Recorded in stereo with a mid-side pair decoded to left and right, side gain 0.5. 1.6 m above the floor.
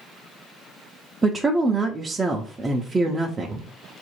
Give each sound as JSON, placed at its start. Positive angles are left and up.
{"t": 1.2, "sound": "a woman speaking", "azimuth_deg": -25, "distance_m": 0.6}